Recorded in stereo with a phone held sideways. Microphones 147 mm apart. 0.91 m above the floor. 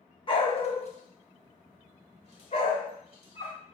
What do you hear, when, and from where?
0.3 s a dog barking: 35° left (ahead or behind), 0.7 m; by 3.6 s 40° left (ahead or behind), 1.8 m